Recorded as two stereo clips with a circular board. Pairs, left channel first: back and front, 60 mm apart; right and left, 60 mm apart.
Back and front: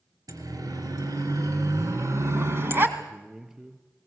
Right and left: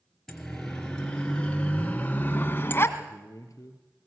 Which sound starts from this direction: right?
A man speaking, at 3.0 s.